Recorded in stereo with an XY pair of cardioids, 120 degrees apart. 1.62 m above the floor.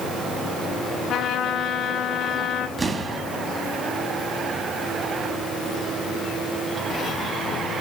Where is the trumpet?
65° left, 1.7 m.